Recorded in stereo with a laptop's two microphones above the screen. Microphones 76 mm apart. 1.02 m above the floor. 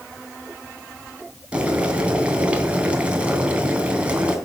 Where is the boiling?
20° right (ahead or behind), 3 m.